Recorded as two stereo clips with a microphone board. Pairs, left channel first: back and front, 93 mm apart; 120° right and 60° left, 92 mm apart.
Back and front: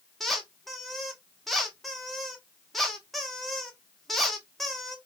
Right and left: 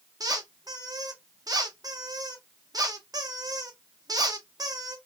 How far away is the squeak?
About 0.8 m.